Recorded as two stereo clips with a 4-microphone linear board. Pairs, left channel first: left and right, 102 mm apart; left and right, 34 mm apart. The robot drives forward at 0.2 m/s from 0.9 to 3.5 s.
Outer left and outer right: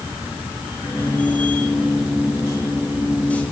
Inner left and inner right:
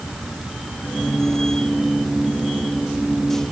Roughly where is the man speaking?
No man speaking in this recording.